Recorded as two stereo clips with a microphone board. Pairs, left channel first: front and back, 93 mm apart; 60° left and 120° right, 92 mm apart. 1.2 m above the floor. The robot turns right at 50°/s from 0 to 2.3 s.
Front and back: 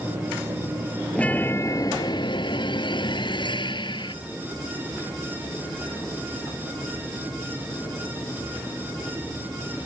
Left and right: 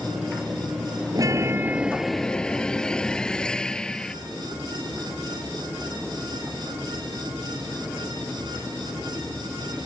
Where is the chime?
80° right; by 4.2 s 20° right.